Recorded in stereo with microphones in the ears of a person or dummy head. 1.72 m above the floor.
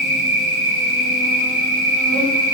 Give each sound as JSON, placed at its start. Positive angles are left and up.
{"t": 0.0, "sound": "an insect", "side_deg": -60, "distance_m": 4.5}